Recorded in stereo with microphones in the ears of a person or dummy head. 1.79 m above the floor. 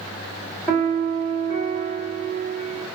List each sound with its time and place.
0.7 s a piano: 10° left (ahead or behind), 1.8 m